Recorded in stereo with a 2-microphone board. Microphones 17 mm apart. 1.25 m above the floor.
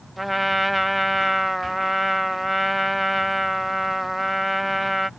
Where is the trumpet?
10° right (ahead or behind).